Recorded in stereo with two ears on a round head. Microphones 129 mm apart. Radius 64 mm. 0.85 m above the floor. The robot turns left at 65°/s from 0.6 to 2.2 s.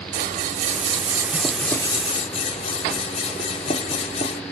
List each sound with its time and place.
0.1 s scissors: 120° right, 0.8 m; by 4.4 s 135° left, 0.8 m